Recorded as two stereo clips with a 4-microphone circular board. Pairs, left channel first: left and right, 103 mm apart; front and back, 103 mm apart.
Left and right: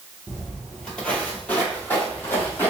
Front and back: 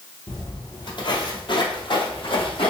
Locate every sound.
0.3 s footsteps: 5° left, 1.3 m; by 2.7 s 20° left, 2.5 m